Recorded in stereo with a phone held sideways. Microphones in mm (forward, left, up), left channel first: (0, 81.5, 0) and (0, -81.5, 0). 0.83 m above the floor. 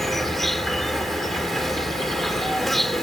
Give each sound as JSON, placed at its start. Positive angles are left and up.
{"t": 0.0, "sound": "an insect", "side_deg": 0}